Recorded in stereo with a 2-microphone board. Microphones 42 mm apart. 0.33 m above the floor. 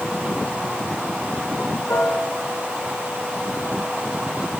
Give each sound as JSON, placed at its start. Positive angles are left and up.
{"t": 1.9, "sound": "a piano", "side_deg": 75, "distance_m": 5.0}